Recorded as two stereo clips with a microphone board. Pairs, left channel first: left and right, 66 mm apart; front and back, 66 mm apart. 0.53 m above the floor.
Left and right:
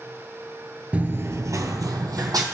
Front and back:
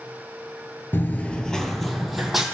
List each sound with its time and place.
0.9 s running footsteps: 35° right, 0.6 m; by 2.4 s 95° right, 1.4 m